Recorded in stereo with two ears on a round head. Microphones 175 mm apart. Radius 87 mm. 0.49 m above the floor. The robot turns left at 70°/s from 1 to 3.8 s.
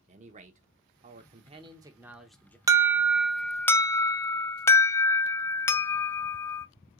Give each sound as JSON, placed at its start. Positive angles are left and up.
{"t": 0.1, "sound": "a man speaking", "azimuth_deg": -90, "distance_m": 0.9}
{"t": 2.7, "sound": "an alarm", "side_deg": -15, "distance_m": 0.5}